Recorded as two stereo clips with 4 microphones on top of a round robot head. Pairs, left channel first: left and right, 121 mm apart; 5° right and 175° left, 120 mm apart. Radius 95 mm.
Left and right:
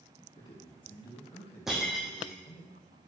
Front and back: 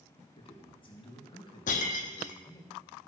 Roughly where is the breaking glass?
Ahead.